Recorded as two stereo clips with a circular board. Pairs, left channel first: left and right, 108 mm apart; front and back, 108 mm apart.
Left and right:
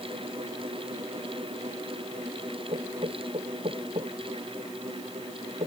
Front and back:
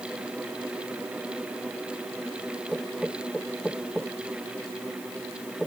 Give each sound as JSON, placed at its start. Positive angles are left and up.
{"t": 2.7, "sound": "knocking", "azimuth_deg": -85}